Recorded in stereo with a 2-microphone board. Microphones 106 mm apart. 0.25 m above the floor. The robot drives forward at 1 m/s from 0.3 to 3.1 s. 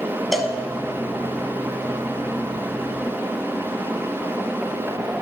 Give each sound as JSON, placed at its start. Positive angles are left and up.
{"t": 0.3, "sound": "a cowbell", "side_deg": 0, "distance_m": 0.6}